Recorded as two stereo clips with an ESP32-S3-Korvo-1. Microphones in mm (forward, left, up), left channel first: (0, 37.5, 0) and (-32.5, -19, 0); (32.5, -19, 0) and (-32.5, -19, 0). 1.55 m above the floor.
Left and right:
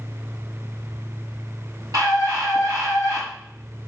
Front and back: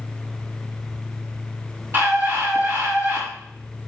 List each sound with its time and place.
1.9 s a scream: 130° right, 3.5 m